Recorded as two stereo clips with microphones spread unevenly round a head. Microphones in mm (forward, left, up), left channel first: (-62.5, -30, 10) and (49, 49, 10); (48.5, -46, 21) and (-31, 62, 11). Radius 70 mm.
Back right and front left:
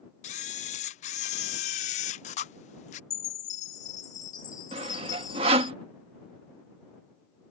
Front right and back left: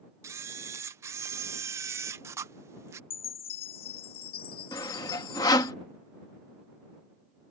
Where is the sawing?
Straight ahead.